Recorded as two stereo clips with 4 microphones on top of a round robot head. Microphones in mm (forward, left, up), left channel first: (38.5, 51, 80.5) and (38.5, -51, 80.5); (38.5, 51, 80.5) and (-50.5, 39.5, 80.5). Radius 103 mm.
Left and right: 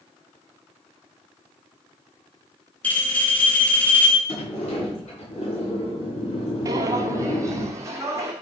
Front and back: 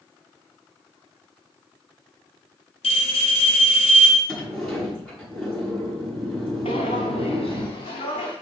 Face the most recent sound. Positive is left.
turn(degrees=-30)